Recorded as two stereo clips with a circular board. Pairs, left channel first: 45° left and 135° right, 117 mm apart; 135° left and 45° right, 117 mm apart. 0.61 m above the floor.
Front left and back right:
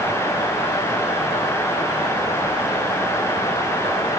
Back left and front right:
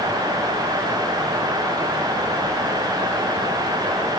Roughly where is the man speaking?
I don't hear a man speaking.